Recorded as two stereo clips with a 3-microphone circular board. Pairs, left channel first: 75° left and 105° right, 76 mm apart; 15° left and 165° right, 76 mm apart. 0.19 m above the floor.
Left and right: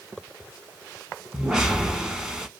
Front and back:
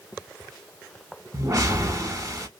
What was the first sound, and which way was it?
A whoosh, 175° left.